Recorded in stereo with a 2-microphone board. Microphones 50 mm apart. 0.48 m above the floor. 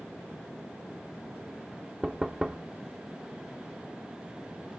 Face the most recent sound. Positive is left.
turn(degrees=-10)  # may be behind; listen again after turning